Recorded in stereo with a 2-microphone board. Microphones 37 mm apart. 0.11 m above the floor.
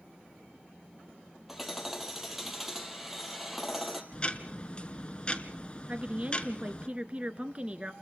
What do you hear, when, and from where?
1.5 s hammering: 5° right (ahead or behind), 2.5 m
4.1 s ticking: 30° left (ahead or behind), 1.1 m
5.9 s a woman speaking: 30° right (ahead or behind), 1.3 m